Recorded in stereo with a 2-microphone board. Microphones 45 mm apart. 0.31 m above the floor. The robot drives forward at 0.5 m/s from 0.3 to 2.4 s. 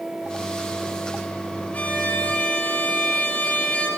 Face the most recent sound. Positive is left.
turn(degrees=30)  # may be behind; listen again after turning